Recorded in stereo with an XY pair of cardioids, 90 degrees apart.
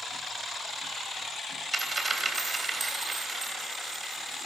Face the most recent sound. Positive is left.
turn(degrees=-25)